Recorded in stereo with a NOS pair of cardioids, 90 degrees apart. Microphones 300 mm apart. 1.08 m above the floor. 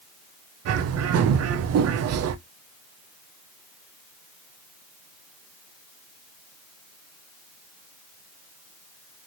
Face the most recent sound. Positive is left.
turn(degrees=-55)